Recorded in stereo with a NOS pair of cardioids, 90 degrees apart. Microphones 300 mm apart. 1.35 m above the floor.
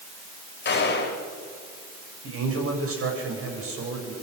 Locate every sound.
0.7 s a gunshot: 35° left, 4 m
2.2 s a man speaking: 50° right, 7.5 m